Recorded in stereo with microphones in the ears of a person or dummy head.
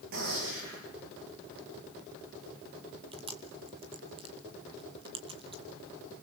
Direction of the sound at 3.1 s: 25° right (ahead or behind).